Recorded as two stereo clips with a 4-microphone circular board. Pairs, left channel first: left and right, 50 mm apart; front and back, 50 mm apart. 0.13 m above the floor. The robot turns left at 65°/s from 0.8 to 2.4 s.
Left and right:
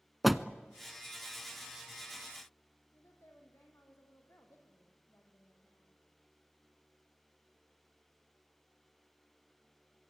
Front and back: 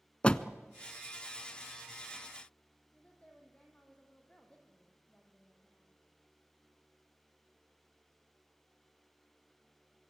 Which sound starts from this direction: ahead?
A door slam, at 0.2 s.